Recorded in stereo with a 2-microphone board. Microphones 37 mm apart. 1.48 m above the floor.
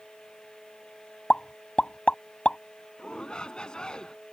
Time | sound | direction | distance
1.3 | a pop | 30° left (ahead or behind) | ?
3.0 | a shout | 20° left (ahead or behind) | ?